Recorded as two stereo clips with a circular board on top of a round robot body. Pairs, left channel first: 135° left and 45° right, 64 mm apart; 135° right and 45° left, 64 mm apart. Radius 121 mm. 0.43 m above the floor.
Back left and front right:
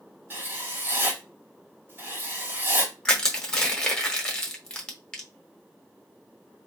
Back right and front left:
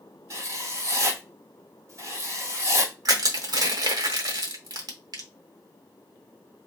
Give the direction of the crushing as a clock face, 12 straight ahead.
10 o'clock.